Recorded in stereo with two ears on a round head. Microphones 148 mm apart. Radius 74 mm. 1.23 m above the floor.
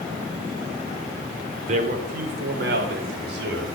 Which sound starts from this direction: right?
A man speaking, at 1.7 s.